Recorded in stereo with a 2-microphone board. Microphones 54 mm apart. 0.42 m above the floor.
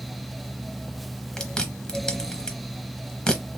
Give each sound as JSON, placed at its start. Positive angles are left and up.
{"t": 1.4, "sound": "chewing", "side_deg": 15, "distance_m": 0.9}